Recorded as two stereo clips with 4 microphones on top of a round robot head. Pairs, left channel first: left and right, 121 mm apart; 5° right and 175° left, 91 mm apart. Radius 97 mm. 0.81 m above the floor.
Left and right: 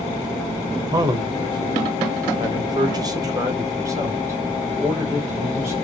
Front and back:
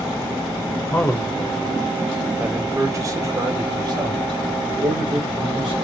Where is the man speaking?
55° right, 0.9 m; by 5.8 s 160° right, 2.5 m.